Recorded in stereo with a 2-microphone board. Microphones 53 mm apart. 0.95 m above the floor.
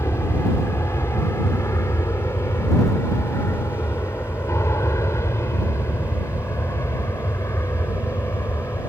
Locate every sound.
0.0 s an aircraft: 60° left (ahead or behind)